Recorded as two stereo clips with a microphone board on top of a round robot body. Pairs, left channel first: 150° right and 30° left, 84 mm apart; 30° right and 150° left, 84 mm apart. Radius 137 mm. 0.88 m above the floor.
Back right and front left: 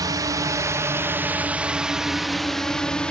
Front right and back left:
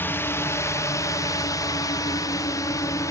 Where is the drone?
25° left; by 3.1 s 75° right.